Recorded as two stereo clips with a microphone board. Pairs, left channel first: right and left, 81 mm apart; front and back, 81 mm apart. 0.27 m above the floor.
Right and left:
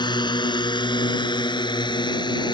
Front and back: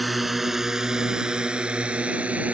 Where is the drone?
90° right; by 2.5 s 105° right.